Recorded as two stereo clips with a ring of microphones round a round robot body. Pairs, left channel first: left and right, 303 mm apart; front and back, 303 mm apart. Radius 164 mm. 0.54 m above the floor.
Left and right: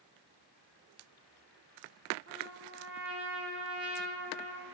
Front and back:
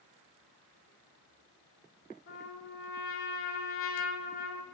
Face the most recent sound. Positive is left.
turn(degrees=-40)